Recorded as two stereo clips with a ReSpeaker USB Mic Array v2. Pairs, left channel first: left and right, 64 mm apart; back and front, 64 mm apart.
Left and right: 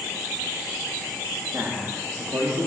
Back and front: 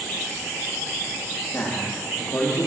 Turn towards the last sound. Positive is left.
turn(degrees=-135)